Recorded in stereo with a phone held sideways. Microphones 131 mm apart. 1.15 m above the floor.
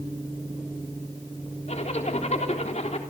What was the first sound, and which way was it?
A zipper, 60° left (ahead or behind).